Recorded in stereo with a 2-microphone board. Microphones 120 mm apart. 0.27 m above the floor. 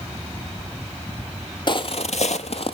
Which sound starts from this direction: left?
Footsteps, at 1.7 s.